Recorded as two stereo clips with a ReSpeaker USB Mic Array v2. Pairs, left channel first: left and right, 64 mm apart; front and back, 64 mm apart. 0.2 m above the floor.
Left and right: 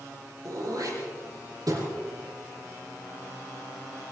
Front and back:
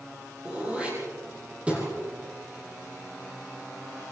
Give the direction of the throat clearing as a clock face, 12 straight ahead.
4 o'clock.